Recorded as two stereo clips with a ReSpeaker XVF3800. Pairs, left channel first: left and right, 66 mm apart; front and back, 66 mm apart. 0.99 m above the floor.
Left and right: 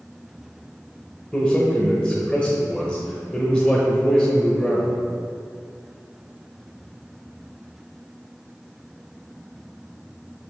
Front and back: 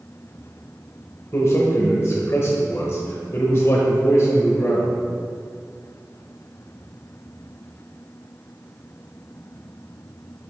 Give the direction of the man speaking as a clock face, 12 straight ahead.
11 o'clock.